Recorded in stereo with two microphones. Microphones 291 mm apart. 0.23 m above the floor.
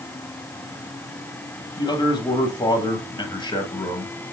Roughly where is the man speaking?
Centre.